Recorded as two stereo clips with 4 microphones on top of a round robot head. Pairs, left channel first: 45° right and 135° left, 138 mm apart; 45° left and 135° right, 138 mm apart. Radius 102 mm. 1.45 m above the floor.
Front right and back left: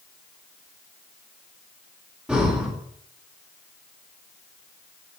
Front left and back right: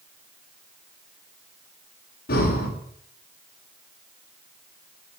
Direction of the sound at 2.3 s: 55° left.